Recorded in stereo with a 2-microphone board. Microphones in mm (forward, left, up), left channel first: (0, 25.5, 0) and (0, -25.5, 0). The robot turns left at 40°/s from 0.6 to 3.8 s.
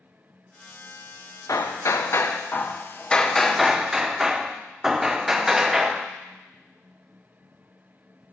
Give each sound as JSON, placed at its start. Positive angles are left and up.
{"t": 1.5, "sound": "hammering", "azimuth_deg": 80, "distance_m": 0.5}